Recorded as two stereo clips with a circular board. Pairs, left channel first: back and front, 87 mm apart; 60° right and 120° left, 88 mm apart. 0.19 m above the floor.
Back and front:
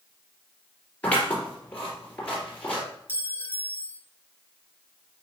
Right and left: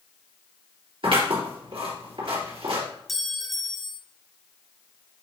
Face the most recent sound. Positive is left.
turn(degrees=-150)